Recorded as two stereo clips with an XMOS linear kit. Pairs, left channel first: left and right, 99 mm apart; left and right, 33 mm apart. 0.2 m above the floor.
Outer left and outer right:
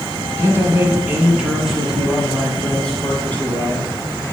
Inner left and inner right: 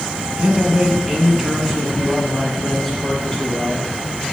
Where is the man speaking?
25° right (ahead or behind), 1.8 m; by 4.0 s 20° left (ahead or behind), 3 m.